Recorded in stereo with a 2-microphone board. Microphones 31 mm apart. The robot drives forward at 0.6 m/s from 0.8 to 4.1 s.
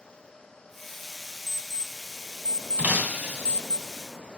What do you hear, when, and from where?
1.5 s an alarm clock: 15° left (ahead or behind), 1.2 m; by 3.8 s 40° left (ahead or behind), 0.5 m
2.8 s breaking glass: 65° right (ahead or behind), 1.5 m; by 3.6 s 60° right (ahead or behind), 1.5 m